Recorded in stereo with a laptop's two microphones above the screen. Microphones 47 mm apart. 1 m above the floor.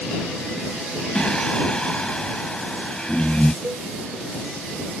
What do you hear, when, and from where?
1.1 s singing: 20° left (ahead or behind)
3.6 s a cowbell: 70° right (ahead or behind)